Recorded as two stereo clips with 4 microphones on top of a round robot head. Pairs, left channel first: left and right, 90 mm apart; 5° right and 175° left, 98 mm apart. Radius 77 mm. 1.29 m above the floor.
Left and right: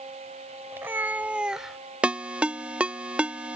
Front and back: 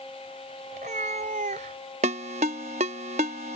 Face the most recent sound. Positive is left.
turn(degrees=-165)